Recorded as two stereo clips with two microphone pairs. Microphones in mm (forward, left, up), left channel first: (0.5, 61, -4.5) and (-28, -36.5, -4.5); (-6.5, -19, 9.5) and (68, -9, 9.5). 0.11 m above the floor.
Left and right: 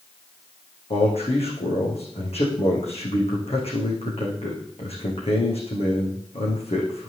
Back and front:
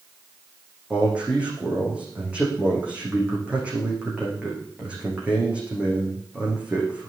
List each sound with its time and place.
0.9 s a man speaking: 80° left, 8 m